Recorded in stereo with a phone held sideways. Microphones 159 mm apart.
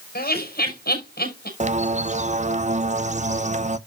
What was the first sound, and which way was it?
Laughter, 80° left.